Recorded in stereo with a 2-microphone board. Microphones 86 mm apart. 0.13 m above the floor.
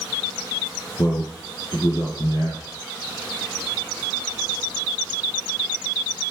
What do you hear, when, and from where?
1.0 s a man speaking: 45° left (ahead or behind), 3 m